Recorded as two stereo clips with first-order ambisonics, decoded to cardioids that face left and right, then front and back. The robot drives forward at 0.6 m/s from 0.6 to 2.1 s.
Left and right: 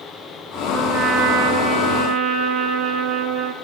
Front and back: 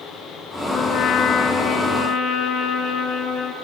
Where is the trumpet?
50° right, 5.5 m; by 3.5 s 55° right, 5 m.